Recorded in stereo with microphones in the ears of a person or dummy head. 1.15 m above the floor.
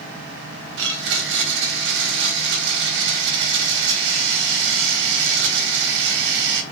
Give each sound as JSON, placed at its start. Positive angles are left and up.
{"t": 0.8, "sound": "a blender", "side_deg": -65, "distance_m": 1.3}